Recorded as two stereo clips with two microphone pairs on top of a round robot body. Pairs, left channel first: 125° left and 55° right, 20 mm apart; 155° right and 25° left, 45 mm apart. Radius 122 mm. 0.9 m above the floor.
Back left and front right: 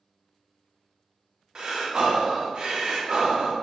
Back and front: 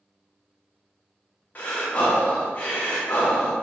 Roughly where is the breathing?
Right.